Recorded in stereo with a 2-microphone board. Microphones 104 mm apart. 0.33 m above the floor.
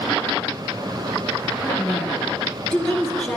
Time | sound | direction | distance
1.6 | a woman speaking | 5° left (ahead or behind) | 4 m